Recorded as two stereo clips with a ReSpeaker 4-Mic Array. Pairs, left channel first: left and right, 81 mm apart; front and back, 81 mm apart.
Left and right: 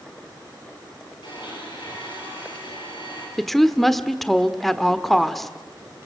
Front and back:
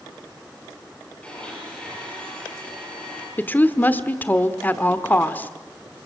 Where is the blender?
75° left, 9 m.